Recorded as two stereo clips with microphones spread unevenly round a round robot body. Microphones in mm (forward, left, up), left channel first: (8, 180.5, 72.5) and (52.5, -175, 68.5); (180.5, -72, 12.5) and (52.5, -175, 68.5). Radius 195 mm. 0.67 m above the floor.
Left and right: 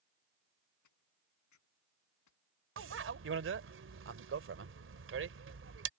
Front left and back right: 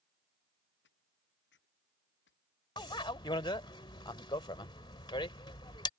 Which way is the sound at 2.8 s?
25° right.